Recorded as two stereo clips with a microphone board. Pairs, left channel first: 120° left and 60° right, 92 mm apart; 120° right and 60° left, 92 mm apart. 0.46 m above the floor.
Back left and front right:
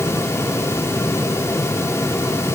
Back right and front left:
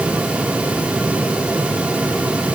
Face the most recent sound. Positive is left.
No sound to turn to.